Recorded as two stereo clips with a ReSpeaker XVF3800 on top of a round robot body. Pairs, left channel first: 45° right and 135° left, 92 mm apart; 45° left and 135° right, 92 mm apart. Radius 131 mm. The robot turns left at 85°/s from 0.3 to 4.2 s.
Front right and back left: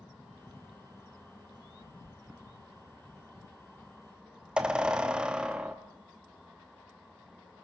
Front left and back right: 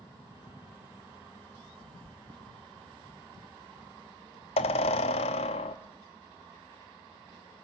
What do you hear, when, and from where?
2.0 s a squeak: 125° right, 0.8 m; by 5.8 s 55° left, 0.8 m